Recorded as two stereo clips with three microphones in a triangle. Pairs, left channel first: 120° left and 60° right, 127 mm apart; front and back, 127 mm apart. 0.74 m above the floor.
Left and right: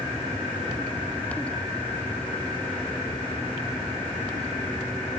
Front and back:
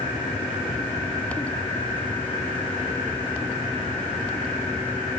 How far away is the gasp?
I don't hear a gasp.